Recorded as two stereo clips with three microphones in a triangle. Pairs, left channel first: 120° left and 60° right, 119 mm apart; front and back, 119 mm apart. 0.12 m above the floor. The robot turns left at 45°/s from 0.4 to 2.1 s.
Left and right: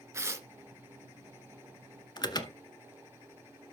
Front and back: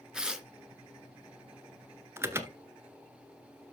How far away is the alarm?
About 1.0 m.